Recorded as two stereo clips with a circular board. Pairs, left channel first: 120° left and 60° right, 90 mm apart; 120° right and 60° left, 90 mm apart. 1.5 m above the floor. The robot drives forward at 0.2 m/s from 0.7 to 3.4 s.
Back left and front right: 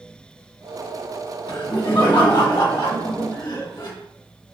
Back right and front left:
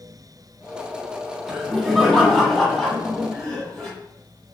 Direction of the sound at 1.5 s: 150° left.